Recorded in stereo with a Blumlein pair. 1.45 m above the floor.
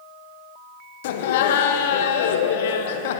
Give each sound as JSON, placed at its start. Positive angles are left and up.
{"t": 1.0, "sound": "laughter", "azimuth_deg": 55, "distance_m": 0.8}